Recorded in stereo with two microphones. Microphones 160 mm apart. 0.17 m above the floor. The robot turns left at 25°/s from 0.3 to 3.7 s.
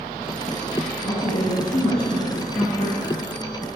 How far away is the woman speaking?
About 2.0 m.